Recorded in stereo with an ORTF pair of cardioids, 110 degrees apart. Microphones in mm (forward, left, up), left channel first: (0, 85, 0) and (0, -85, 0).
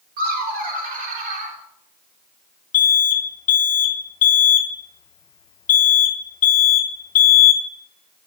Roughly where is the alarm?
Ahead left.